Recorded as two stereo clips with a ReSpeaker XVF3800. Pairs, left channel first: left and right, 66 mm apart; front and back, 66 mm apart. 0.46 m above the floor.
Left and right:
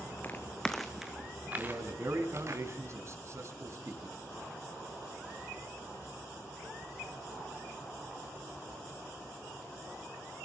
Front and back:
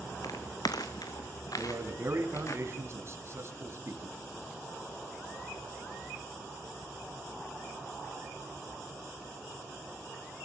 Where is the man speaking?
135° right, 3 m.